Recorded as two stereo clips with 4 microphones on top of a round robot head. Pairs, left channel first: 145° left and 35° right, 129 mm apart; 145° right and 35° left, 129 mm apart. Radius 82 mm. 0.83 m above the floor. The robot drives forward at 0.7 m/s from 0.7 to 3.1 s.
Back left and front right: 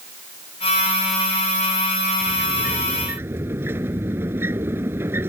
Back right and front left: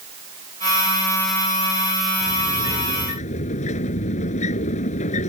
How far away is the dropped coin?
I don't hear a dropped coin.